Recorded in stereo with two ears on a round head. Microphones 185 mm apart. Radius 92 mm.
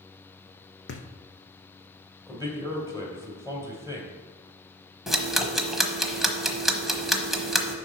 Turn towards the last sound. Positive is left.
turn(degrees=0)  # may be behind; listen again after turning